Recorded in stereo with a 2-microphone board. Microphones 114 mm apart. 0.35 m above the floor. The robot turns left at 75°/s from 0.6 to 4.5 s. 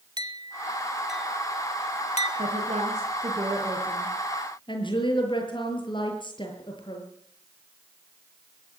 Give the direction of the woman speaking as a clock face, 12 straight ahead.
2 o'clock.